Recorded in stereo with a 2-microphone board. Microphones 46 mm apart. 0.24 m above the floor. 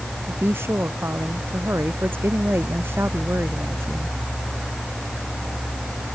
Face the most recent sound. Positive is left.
turn(degrees=-60)  # may be behind; listen again after turning